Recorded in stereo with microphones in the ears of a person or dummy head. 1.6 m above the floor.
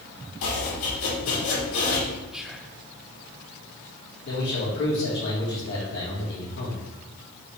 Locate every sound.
0.4 s chopping: 80° left, 2.5 m
2.3 s whispering: 5° left (ahead or behind), 0.6 m
4.3 s a man speaking: 65° left (ahead or behind), 2.5 m